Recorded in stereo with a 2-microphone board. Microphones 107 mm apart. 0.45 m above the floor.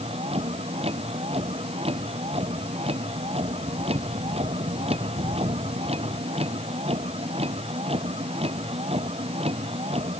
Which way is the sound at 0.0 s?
70° right (ahead or behind).